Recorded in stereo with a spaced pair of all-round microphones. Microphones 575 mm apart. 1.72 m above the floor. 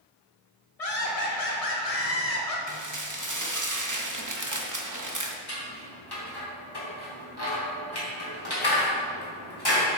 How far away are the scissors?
About 2.5 m.